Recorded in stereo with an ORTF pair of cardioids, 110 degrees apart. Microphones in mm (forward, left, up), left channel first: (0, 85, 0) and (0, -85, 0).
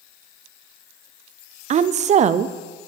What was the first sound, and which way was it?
A woman speaking, 45° right.